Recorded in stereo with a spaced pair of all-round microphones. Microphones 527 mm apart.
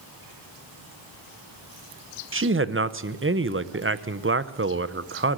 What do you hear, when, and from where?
2.3 s a man speaking: 25° right (ahead or behind), 0.6 m